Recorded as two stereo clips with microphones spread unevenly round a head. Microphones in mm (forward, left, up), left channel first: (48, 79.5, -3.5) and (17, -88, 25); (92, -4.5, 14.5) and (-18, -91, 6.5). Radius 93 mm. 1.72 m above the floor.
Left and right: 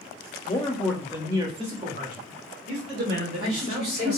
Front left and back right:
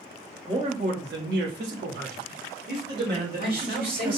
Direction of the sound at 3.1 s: 130° right.